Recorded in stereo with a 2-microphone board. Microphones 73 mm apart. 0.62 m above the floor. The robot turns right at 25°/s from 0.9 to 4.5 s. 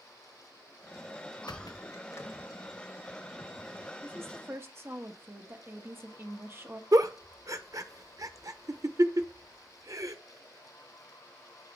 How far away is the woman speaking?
About 1.1 m.